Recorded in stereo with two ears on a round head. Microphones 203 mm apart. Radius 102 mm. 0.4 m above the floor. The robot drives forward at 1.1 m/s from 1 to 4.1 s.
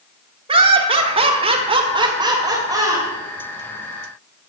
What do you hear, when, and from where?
0.5 s laughter: 25° right (ahead or behind), 1.3 m; by 3.1 s 15° right (ahead or behind), 2 m